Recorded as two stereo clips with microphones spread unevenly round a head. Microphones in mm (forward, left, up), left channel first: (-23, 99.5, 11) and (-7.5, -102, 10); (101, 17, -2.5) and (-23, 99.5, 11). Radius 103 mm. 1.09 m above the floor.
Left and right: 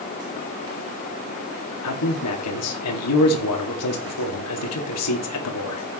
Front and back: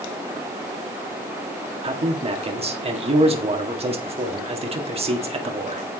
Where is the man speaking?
95° left, 1.9 m.